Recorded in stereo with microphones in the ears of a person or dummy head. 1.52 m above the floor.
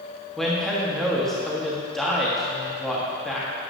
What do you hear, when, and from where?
0.4 s a man speaking: 5° left (ahead or behind), 1.4 m